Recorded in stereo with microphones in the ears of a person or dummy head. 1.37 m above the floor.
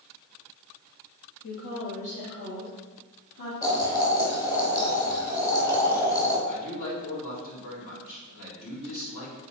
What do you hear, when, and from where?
1.4 s a woman speaking: 65° left (ahead or behind), 2 m; by 3.5 s 45° left (ahead or behind), 3 m
3.6 s boiling: 20° left (ahead or behind), 2.5 m
6.5 s a man speaking: 70° left (ahead or behind), 3.5 m